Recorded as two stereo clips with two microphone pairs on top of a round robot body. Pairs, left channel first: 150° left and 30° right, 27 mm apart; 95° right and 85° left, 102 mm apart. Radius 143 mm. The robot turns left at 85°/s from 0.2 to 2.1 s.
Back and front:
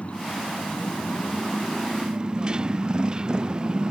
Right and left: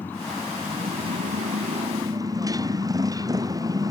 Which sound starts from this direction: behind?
A motorcycle, at 0.0 s.